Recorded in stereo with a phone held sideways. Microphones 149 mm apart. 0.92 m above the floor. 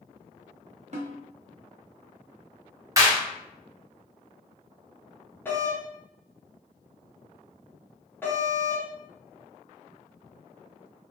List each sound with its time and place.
0.9 s a snare drum: 50° right (ahead or behind), 0.6 m
3.0 s a clap: 25° right (ahead or behind), 0.9 m
5.5 s a doorbell: 15° left (ahead or behind), 0.7 m